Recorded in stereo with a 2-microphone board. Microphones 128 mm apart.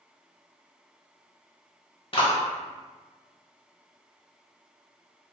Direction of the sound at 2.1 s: 45° left (ahead or behind).